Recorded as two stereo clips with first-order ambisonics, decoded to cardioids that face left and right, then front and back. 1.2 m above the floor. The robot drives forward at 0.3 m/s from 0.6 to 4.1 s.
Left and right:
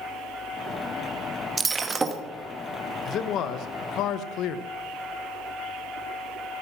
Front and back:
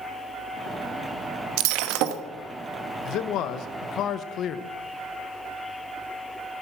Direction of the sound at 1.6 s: 165° right.